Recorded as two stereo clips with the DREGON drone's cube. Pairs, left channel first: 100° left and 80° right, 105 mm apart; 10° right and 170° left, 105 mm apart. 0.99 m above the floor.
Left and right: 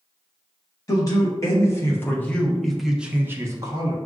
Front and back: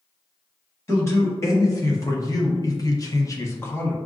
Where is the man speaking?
50° left, 1.4 m; by 4.0 s 80° right, 0.8 m.